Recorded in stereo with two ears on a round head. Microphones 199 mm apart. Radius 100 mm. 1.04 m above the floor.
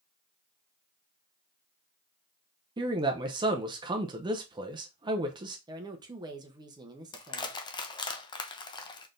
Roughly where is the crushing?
Centre.